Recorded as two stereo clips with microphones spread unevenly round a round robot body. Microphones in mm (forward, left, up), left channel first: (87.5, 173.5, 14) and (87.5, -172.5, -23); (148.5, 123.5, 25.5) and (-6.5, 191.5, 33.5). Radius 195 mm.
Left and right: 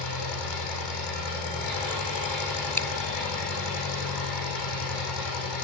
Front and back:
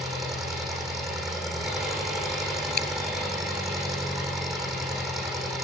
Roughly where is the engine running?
Left.